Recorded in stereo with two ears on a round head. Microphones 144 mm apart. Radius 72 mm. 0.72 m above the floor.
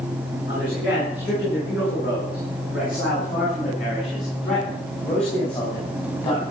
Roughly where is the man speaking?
Left.